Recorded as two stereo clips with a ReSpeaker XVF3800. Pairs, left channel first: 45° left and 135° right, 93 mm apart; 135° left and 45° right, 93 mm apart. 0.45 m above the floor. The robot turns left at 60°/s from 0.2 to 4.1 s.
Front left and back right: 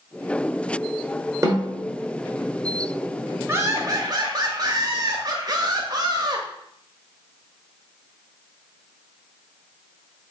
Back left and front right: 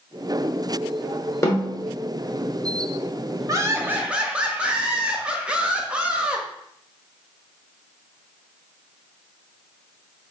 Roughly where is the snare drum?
Behind.